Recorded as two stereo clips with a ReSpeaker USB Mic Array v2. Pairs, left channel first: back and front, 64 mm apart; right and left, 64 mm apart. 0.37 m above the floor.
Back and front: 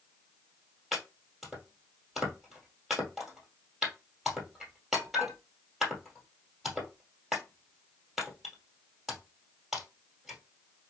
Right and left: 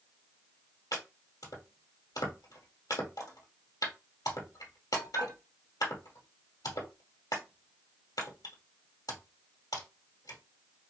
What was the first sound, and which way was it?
Chopping, 85° right.